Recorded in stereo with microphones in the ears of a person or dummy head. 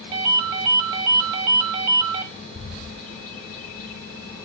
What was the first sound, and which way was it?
A ringtone, 20° right (ahead or behind).